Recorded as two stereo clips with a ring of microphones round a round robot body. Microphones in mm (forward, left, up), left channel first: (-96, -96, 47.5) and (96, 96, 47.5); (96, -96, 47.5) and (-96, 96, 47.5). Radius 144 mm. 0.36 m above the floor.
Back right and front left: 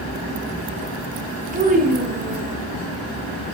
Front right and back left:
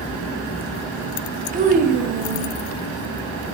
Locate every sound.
1.5 s a child speaking: 90° left, 1.2 m